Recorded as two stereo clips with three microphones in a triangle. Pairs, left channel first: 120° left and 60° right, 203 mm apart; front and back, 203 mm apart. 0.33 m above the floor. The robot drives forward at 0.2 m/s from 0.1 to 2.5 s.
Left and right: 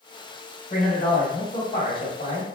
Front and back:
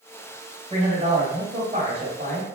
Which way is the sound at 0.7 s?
135° left.